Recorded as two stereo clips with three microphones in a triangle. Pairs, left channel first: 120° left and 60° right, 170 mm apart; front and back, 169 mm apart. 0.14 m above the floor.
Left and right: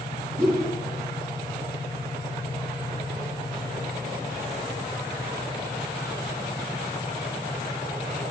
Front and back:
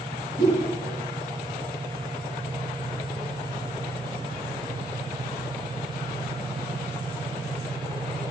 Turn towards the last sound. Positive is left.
turn(degrees=-160)